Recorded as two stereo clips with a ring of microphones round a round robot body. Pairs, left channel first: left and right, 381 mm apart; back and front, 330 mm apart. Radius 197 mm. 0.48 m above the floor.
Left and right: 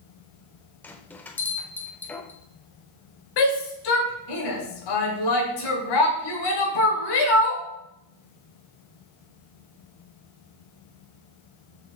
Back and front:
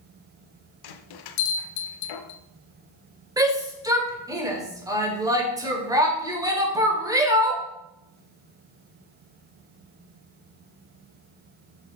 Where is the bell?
175° left, 0.7 m.